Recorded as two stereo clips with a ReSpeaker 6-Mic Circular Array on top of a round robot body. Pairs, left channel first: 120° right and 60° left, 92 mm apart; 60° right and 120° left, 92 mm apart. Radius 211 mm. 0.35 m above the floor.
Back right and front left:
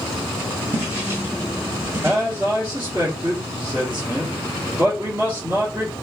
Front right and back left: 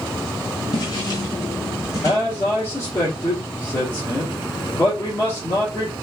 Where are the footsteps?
10° right, 1.1 m; by 2.2 s straight ahead, 1.8 m.